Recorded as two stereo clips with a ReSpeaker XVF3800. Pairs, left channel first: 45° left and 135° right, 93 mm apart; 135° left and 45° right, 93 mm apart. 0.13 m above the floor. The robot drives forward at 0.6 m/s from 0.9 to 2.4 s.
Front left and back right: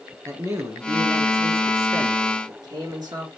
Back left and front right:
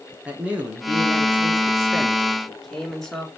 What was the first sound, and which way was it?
A man speaking, 110° right.